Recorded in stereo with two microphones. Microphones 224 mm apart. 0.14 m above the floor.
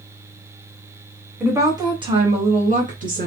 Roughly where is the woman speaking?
Centre.